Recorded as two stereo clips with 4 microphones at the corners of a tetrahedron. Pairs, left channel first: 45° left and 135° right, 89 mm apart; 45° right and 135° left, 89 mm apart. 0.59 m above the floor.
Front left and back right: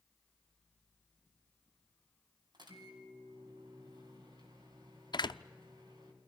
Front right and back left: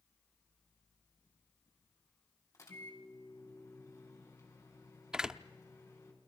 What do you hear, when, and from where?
2.5 s a microwave: 100° right, 4 m
5.1 s a door slam: 55° left, 0.6 m